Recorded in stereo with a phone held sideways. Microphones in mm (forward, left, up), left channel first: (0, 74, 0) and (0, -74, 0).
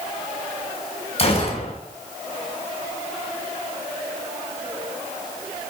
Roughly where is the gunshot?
Left.